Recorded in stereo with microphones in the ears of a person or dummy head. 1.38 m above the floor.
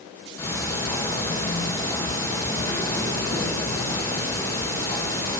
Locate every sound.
0.4 s ticking: 20° left (ahead or behind), 1.0 m